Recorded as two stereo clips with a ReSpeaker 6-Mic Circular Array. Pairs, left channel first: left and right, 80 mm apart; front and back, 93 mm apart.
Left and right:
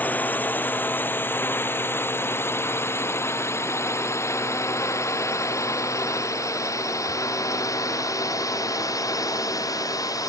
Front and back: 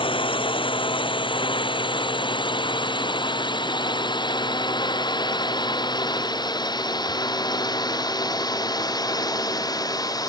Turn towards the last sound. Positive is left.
turn(degrees=50)